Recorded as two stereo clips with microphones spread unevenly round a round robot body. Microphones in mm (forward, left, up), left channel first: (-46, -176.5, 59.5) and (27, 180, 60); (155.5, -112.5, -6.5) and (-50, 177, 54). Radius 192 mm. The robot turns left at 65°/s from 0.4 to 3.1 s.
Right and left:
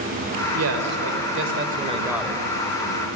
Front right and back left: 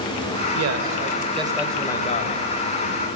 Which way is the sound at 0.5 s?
100° left.